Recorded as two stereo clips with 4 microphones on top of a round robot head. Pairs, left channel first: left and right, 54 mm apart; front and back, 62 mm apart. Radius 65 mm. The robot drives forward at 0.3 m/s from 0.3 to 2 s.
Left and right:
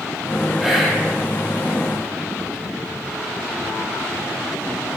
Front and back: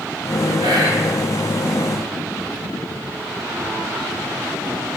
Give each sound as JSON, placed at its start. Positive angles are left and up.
{"t": 0.6, "sound": "whispering", "azimuth_deg": -175, "distance_m": 0.7}